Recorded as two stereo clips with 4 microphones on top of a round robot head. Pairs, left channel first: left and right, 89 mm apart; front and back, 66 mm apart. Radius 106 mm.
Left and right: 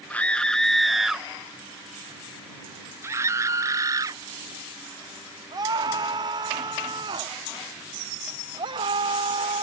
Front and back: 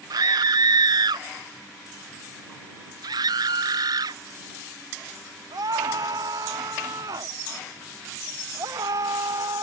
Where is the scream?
165° left; by 9.6 s 130° right.